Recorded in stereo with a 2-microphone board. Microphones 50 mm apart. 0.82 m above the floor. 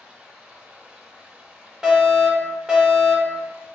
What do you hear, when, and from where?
0.0 s running water: 15° right (ahead or behind), 1.1 m
1.8 s a fire alarm: 10° right (ahead or behind), 1.4 m